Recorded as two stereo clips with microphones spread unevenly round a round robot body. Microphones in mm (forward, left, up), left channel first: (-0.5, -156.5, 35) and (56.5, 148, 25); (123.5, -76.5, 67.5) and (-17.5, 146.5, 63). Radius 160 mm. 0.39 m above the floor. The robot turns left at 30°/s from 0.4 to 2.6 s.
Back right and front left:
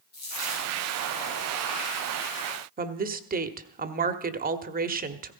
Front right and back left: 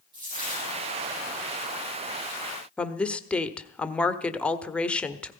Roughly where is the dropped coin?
Behind.